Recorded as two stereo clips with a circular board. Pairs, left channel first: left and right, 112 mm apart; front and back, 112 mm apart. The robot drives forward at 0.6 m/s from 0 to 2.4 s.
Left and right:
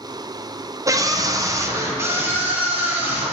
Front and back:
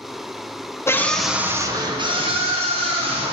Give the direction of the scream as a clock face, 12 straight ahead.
2 o'clock.